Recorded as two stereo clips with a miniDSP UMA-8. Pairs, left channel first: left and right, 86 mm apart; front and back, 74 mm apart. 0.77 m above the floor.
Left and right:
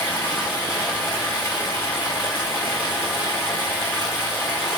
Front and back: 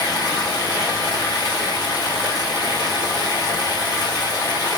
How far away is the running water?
About 5.5 m.